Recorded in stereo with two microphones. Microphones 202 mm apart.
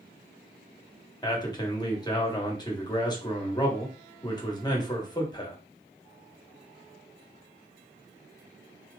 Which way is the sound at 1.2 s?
20° left (ahead or behind).